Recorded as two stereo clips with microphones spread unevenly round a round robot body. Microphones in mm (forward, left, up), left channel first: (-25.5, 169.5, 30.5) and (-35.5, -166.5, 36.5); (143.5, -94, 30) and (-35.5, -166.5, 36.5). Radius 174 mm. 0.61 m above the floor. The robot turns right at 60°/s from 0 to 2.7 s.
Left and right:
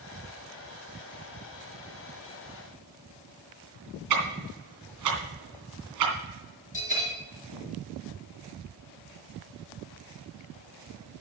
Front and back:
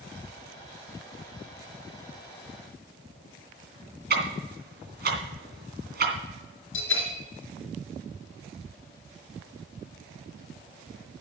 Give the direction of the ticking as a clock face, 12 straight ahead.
4 o'clock.